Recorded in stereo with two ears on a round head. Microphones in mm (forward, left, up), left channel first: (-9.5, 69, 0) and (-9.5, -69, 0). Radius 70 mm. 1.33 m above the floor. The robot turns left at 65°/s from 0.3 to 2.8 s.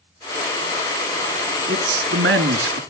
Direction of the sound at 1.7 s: 50° right.